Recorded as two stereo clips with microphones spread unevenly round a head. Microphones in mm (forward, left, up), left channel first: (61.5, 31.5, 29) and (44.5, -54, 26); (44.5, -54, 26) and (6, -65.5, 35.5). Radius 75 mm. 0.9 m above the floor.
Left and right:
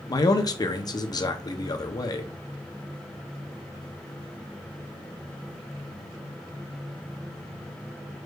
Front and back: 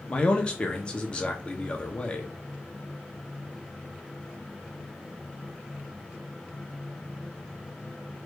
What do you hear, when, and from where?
0.1 s a man speaking: 55° left, 0.7 m